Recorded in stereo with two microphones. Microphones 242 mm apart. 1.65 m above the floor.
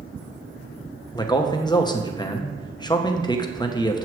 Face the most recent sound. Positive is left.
turn(degrees=15)  # may be behind; listen again after turning